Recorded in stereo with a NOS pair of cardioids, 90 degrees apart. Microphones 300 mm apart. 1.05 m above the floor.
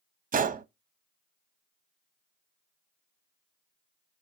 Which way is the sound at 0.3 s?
30° right.